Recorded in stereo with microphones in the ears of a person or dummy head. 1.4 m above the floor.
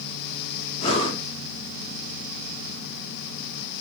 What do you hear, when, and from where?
0.8 s breathing: 25° left (ahead or behind), 0.7 m